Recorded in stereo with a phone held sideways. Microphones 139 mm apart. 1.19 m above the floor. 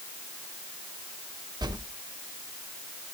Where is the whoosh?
30° right (ahead or behind), 0.7 m.